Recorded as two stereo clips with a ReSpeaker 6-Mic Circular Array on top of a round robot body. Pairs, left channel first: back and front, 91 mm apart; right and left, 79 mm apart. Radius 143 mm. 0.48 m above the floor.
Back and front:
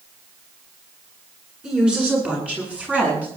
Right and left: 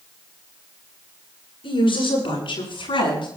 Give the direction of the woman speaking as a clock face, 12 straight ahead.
3 o'clock.